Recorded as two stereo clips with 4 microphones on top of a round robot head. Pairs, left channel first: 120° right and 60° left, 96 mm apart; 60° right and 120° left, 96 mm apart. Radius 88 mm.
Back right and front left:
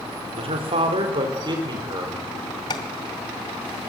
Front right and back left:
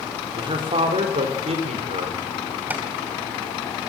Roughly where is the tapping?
Behind.